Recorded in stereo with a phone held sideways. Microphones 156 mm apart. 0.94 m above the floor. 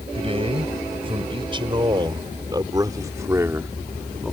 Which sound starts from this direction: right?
A man speaking, at 0.1 s.